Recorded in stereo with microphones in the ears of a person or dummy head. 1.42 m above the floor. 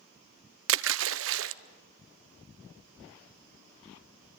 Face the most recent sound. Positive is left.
turn(degrees=-70)  # may be behind; listen again after turning